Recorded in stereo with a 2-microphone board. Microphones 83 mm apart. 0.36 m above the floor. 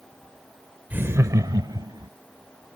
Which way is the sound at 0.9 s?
20° right (ahead or behind).